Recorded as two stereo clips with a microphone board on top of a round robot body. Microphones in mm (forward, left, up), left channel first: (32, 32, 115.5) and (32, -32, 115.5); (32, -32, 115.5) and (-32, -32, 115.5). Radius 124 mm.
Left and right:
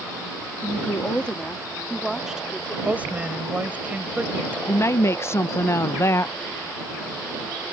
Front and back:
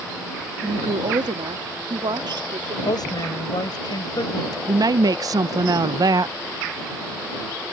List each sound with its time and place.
0.6 s a woman speaking: 155° left; by 2.8 s 165° right
2.9 s a woman speaking: 20° right
4.7 s a woman speaking: 145° left